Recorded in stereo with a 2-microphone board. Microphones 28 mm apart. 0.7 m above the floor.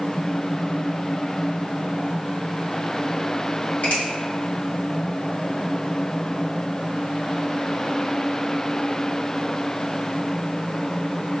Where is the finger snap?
60° left (ahead or behind), 1.3 m.